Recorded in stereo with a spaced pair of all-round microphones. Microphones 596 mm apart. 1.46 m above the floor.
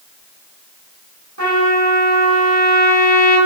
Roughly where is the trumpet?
Right.